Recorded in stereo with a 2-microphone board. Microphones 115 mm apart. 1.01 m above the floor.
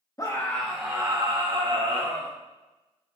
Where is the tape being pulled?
I don't hear tape being pulled.